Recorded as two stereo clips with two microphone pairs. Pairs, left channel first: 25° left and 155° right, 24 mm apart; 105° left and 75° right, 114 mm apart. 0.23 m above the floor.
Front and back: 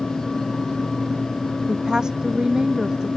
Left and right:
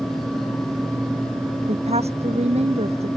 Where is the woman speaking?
100° right.